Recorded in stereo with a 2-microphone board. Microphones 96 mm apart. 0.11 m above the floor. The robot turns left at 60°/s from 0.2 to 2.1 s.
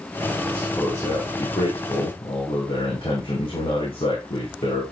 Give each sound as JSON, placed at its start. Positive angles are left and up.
{"t": 0.5, "sound": "a man speaking", "azimuth_deg": 170, "distance_m": 5.0}